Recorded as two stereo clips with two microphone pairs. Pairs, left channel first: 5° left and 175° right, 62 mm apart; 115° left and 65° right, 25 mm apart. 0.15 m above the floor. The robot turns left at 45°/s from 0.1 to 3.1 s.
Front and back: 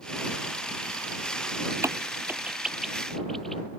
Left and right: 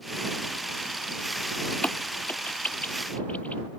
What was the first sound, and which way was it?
A crack, 150° left.